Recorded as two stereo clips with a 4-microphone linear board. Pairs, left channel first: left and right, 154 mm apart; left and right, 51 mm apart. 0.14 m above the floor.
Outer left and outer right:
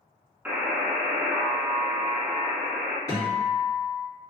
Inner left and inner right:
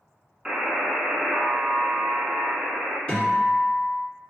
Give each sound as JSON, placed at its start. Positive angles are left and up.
{"t": 0.5, "sound": "a buzzer", "side_deg": -10, "distance_m": 0.6}
{"t": 3.1, "sound": "a guitar", "side_deg": 20, "distance_m": 1.9}